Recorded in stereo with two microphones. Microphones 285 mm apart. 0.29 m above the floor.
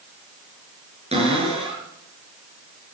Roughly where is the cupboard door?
Right.